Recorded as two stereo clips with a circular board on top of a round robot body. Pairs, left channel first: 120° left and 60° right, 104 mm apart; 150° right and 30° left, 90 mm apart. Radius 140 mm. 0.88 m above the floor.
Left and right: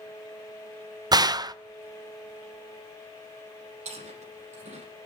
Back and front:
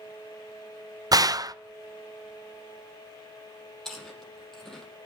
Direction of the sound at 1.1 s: 15° right.